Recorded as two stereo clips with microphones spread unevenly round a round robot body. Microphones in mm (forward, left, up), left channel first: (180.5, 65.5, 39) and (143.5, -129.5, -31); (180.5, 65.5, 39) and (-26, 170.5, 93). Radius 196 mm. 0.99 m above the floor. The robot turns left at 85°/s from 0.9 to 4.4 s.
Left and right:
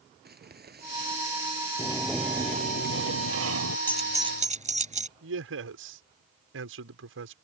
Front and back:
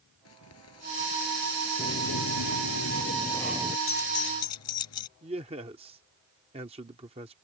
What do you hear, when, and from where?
0.2 s crumpling: 60° right; by 1.7 s 130° right
1.8 s a sliding door: 25° left; by 3.8 s 145° right
3.9 s keys jangling: straight ahead; by 5.1 s 45° right
5.2 s a man speaking: 130° right